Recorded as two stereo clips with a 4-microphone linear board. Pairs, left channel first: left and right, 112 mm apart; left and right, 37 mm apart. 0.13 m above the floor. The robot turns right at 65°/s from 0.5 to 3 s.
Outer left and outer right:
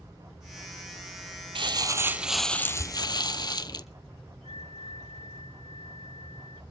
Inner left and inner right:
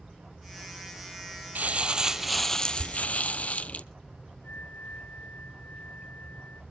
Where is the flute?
65° left (ahead or behind), 1.4 m.